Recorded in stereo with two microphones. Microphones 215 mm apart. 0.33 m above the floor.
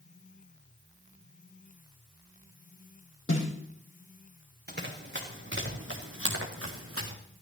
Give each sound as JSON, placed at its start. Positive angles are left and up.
{"t": 3.3, "sound": "a snare drum", "side_deg": 70, "distance_m": 8.0}
{"t": 4.7, "sound": "running footsteps", "side_deg": -50, "distance_m": 3.0}